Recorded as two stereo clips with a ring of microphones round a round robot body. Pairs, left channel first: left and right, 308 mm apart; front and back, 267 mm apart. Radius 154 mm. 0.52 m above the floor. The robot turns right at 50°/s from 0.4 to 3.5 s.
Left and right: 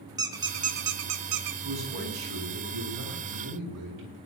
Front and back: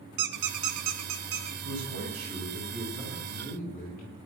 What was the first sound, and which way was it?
A squeak, 170° right.